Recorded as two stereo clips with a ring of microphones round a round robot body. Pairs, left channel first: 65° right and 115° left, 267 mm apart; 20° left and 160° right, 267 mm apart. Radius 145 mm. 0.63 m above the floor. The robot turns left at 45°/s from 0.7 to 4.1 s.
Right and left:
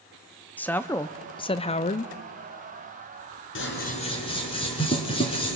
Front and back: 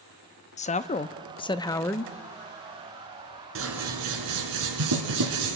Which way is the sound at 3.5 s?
115° right.